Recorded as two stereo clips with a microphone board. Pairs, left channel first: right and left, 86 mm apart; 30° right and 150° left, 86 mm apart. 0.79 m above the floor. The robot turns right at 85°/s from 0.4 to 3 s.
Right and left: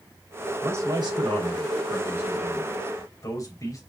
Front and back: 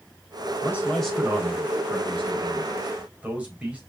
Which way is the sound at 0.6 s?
20° left.